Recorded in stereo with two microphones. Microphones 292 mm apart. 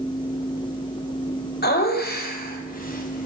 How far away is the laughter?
About 2 m.